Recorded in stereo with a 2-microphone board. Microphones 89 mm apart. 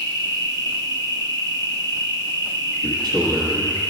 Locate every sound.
0.0 s an insect: 50° right (ahead or behind), 1.1 m
2.8 s a man speaking: 60° right (ahead or behind), 1.4 m